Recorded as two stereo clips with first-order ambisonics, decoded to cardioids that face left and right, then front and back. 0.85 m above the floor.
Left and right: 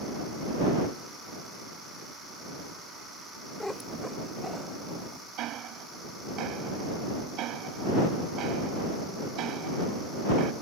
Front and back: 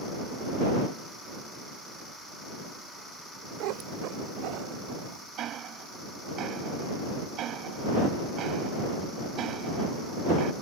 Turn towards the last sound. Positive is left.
turn(degrees=-130)